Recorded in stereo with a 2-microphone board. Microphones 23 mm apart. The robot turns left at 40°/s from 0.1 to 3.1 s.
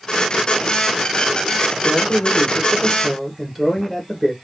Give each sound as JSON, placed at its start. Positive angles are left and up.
{"t": 1.8, "sound": "a man speaking", "azimuth_deg": 40, "distance_m": 2.0}